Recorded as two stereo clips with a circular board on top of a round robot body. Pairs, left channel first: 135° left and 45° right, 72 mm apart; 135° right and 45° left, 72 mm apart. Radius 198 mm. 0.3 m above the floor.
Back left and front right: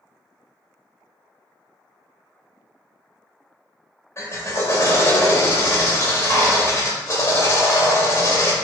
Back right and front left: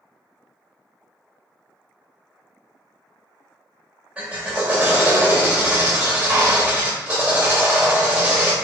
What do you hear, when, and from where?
4.2 s a drill: 110° left, 1.9 m